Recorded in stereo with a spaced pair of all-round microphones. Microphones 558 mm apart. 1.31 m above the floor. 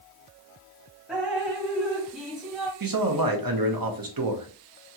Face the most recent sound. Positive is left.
turn(degrees=-40)  # may be behind; listen again after turning